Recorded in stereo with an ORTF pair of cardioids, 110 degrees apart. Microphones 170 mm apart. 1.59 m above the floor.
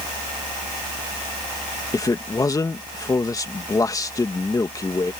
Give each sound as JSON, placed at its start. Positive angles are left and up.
{"t": 1.9, "sound": "a man speaking", "azimuth_deg": 20}